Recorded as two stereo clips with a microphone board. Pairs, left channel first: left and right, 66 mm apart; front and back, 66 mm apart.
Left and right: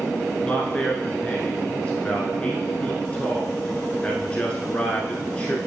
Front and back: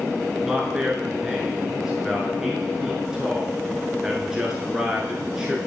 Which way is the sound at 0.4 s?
120° left.